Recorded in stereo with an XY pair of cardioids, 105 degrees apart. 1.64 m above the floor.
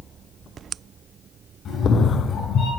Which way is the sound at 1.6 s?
65° left.